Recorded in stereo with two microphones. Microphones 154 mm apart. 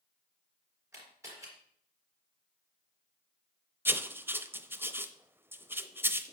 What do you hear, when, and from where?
0.9 s a camera shutter: 15° right (ahead or behind), 4 m
3.9 s writing: 15° right (ahead or behind), 0.6 m